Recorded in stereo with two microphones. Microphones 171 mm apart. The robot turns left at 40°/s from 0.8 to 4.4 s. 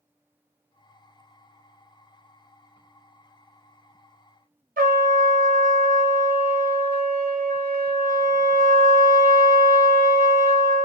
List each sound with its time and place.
4.8 s a trumpet: 55° right (ahead or behind), 0.5 m